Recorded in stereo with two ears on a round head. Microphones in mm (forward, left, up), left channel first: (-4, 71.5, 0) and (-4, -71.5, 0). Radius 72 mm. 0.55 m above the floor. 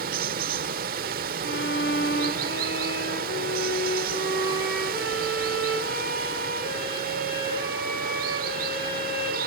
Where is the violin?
80° left, 10 m.